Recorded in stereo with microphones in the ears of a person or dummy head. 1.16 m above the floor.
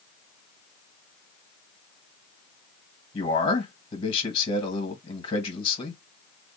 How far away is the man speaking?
About 1.3 m.